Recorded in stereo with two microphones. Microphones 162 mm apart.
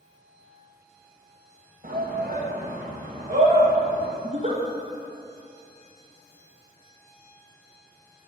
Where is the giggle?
45° right (ahead or behind), 1.4 m.